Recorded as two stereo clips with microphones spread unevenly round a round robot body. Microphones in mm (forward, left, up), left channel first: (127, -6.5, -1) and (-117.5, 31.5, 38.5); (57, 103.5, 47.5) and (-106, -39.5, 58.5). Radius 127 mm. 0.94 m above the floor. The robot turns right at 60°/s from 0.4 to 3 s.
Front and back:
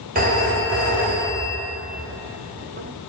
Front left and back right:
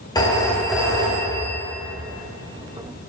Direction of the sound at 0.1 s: 115° left.